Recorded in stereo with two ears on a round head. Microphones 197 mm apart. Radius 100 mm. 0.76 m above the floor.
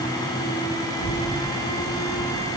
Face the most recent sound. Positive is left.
turn(degrees=-55)  # may be behind; listen again after turning